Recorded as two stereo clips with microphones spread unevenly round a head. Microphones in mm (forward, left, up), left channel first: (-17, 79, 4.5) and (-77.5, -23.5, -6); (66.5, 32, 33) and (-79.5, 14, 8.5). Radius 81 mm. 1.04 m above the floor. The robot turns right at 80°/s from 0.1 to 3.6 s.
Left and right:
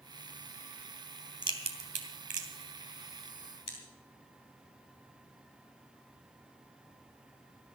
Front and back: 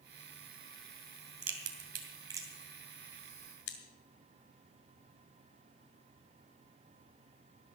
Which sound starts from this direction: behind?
A crack, at 1.4 s.